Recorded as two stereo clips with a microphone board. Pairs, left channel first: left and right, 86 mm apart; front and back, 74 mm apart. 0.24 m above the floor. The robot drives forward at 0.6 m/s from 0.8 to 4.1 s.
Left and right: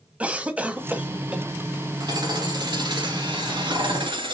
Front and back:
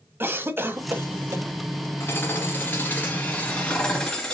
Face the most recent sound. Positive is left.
turn(degrees=-80)